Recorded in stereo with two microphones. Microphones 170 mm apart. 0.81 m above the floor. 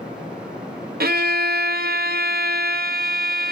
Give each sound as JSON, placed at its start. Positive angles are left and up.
{"t": 1.0, "sound": "a violin", "side_deg": -65, "distance_m": 0.6}